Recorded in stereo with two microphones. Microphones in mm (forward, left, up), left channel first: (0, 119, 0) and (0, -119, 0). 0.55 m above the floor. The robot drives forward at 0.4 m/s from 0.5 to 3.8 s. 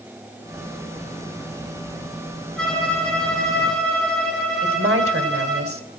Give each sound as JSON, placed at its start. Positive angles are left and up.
{"t": 2.6, "sound": "a violin", "side_deg": 5, "distance_m": 7.0}
{"t": 4.6, "sound": "a woman speaking", "side_deg": -65, "distance_m": 2.5}